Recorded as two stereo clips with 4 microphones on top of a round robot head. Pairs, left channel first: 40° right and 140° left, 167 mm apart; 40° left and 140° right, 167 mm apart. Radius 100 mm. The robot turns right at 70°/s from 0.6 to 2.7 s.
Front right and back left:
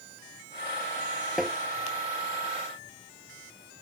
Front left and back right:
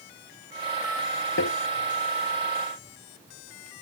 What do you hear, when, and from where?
1.4 s tapping: 50° left; by 1.6 s 65° left